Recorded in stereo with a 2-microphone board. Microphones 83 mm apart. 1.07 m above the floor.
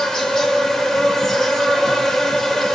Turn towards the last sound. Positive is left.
turn(degrees=5)  # may be behind; listen again after turning